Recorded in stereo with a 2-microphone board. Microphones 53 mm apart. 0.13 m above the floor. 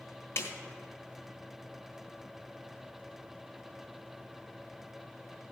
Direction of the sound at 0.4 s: 50° left (ahead or behind).